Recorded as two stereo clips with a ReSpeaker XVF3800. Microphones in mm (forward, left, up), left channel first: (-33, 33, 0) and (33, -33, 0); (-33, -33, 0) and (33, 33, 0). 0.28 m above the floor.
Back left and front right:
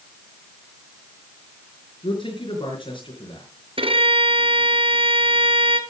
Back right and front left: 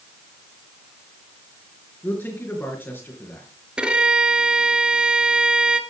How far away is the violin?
About 1.4 m.